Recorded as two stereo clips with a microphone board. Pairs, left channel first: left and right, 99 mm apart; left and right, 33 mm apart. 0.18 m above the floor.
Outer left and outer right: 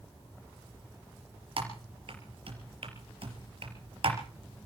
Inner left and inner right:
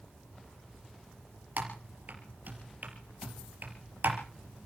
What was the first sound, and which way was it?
Typing on a keyboard, 65° right (ahead or behind).